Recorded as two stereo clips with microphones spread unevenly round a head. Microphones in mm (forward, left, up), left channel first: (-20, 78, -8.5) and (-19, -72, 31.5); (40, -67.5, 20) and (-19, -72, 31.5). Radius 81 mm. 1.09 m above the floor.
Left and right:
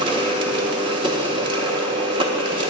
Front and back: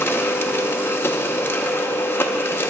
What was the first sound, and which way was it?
A machine running, 25° right.